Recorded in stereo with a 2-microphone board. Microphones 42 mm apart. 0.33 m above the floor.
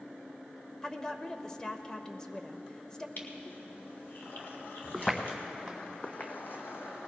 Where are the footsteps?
Centre (ahead or behind), 1.8 m; by 7.1 s 75° left (ahead or behind), 1.2 m.